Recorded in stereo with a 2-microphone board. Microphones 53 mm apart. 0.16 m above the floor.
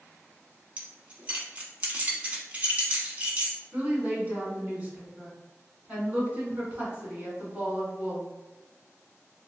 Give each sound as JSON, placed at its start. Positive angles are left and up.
{"t": 0.8, "sound": "keys jangling", "side_deg": -30, "distance_m": 0.8}
{"t": 3.7, "sound": "a woman speaking", "side_deg": -25, "distance_m": 1.6}